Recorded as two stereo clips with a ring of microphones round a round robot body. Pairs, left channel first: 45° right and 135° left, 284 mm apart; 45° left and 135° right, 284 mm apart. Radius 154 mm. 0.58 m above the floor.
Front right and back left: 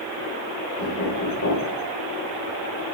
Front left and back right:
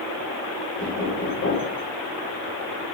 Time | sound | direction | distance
0.8 | knocking | 5° right | 1.5 m